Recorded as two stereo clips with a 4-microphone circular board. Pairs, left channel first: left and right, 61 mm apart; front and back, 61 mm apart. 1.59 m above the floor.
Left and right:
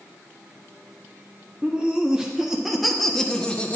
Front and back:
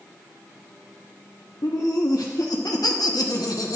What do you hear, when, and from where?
1.6 s laughter: 15° right, 1.7 m; by 3.8 s 25° left, 1.0 m